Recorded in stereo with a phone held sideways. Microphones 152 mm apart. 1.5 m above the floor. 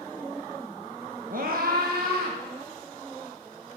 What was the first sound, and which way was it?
A scream, 60° right (ahead or behind).